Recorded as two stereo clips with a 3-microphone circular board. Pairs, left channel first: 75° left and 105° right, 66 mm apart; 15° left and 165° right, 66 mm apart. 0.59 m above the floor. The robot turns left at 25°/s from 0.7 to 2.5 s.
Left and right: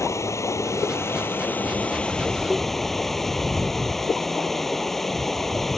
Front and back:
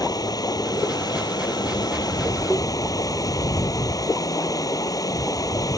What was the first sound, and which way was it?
Running water, 35° left.